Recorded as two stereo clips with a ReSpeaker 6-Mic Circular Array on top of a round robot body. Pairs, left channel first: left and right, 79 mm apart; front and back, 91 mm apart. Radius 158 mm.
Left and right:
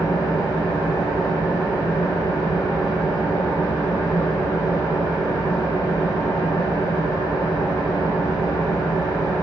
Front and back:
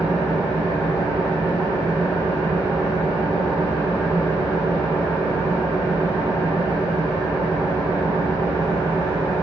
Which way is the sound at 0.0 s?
55° left.